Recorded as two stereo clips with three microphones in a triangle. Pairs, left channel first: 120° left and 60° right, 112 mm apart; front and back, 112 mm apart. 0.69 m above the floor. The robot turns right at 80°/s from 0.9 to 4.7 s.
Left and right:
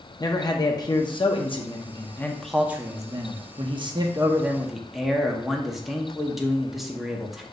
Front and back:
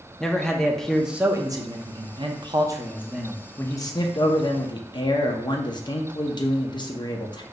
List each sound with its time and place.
0.2 s a man speaking: 85° left, 0.6 m; by 7.4 s 25° left, 0.6 m